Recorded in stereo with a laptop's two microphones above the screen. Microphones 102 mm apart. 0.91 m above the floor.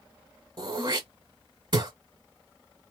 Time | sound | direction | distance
0.6 | throat clearing | 50° right (ahead or behind) | 1.2 m